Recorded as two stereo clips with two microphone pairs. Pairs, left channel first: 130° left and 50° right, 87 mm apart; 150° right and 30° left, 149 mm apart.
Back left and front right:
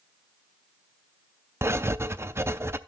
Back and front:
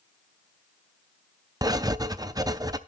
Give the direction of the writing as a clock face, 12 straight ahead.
12 o'clock.